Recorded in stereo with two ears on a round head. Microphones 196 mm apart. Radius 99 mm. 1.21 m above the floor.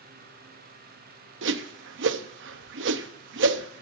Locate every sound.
1.4 s a whoosh: 55° right (ahead or behind), 0.8 m